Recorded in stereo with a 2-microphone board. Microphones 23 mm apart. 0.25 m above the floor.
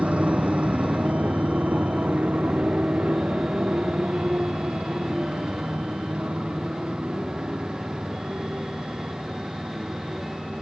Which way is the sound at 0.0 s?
75° right (ahead or behind).